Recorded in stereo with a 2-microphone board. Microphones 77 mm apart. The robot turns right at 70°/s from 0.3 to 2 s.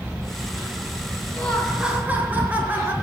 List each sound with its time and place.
1.4 s laughter: 160° left, 5 m; by 2.9 s 155° right, 5 m